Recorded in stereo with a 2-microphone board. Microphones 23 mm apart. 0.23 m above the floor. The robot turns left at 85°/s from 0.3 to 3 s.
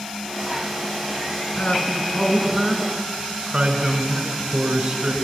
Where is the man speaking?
80° left, 2.0 m; by 5.2 s 40° right, 2.0 m.